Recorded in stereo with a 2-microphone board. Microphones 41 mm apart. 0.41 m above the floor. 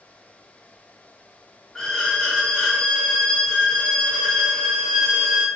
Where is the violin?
10° left (ahead or behind), 1.0 m.